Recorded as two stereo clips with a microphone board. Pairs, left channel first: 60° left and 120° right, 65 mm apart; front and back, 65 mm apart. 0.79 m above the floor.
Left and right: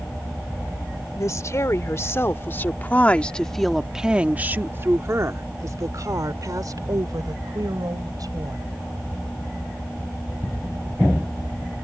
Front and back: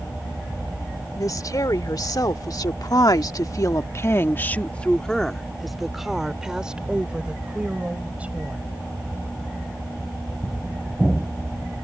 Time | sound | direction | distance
1.2 | a woman speaking | 25° left | ?